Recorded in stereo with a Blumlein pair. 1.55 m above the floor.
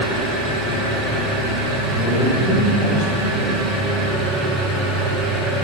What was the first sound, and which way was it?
An engine running, 25° right.